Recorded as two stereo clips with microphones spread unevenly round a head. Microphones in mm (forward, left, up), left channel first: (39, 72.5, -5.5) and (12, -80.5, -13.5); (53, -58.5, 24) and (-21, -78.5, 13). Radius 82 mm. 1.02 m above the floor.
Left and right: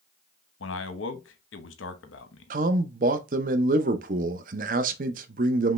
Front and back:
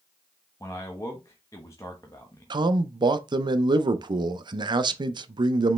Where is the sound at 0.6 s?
85° left, 0.9 m.